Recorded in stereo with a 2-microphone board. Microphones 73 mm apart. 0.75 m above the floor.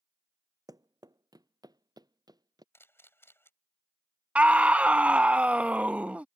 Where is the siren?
No siren in this recording.